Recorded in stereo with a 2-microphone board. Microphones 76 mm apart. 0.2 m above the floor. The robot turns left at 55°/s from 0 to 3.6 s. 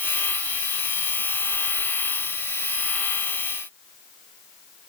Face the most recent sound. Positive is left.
No sound to turn to.